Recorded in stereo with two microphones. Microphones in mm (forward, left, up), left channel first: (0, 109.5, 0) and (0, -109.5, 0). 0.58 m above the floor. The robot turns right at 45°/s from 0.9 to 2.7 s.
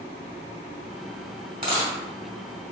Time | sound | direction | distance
1.6 | a dropped coin | 40° right (ahead or behind) | 1.8 m